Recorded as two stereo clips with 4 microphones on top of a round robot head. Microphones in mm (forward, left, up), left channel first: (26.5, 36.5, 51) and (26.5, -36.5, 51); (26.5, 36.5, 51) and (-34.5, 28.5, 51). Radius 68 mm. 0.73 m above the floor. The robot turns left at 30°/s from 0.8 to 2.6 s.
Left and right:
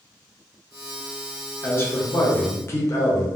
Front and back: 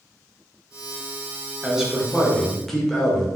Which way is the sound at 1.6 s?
120° left.